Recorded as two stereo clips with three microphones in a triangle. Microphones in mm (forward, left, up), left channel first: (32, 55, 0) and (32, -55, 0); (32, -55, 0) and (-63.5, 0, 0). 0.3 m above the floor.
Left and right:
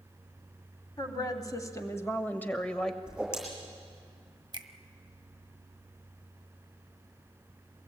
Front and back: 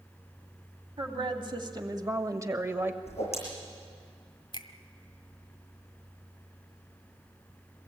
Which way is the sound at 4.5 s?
60° right.